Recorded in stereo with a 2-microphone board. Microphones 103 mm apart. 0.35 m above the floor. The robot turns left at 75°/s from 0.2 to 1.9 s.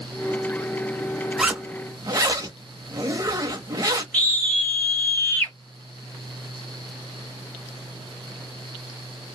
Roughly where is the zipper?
Ahead.